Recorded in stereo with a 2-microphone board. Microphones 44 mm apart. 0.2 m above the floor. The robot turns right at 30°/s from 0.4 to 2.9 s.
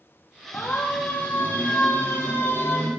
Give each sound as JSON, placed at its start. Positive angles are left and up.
{"t": 0.5, "sound": "a siren", "side_deg": 65, "distance_m": 5.5}